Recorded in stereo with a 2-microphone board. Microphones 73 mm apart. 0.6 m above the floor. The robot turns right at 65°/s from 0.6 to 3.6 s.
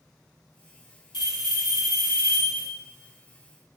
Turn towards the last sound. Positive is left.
turn(degrees=-120)